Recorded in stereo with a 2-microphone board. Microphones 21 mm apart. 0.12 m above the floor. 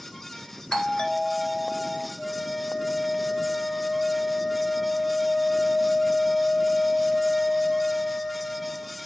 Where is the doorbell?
40° left (ahead or behind), 2 m.